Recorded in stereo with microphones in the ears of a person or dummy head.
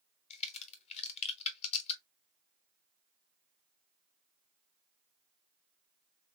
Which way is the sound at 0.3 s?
35° left (ahead or behind).